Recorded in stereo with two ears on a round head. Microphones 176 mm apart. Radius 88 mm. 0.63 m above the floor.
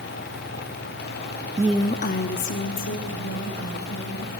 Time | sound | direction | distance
1.6 | a woman speaking | 20° right (ahead or behind) | 0.5 m